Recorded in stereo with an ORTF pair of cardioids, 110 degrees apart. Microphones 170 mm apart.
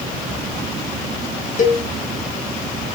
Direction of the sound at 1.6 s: 45° left.